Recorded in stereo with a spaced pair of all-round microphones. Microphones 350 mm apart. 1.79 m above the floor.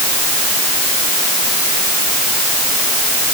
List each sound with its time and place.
Only background noise.